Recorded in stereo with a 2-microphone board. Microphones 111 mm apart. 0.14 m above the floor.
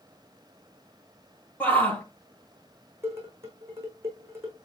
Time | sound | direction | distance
1.6 | a shout | 15° left (ahead or behind) | 4 m
3.0 | dishes clattering | 25° right (ahead or behind) | 7 m